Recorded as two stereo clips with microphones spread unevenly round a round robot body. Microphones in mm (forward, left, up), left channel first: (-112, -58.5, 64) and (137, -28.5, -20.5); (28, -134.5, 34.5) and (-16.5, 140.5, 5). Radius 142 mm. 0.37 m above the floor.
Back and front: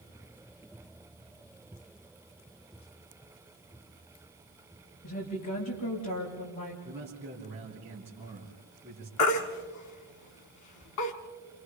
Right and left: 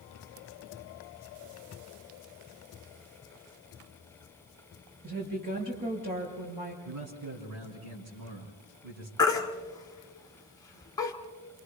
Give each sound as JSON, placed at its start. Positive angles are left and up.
{"t": 5.0, "sound": "a woman speaking", "azimuth_deg": 160, "distance_m": 7.0}
{"t": 6.8, "sound": "a man speaking", "azimuth_deg": 85, "distance_m": 4.0}
{"t": 9.2, "sound": "a baby crying", "azimuth_deg": -160, "distance_m": 1.8}